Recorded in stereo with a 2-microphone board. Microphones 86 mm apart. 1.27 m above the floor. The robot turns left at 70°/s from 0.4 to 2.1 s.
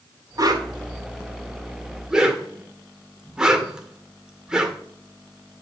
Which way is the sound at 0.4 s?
45° right (ahead or behind).